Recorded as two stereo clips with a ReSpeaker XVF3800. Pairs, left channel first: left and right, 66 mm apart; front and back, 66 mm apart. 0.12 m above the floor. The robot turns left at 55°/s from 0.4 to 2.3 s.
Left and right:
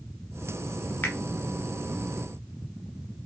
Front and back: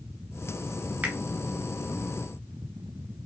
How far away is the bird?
I don't hear a bird.